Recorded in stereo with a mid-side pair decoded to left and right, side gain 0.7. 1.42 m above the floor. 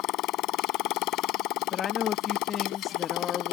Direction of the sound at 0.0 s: 60° left.